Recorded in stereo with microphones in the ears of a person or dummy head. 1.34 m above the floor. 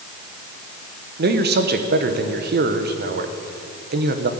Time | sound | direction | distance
1.2 | a man speaking | 55° right (ahead or behind) | 1.0 m